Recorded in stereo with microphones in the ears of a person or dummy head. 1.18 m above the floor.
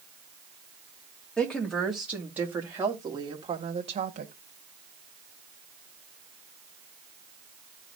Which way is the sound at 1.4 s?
5° left (ahead or behind).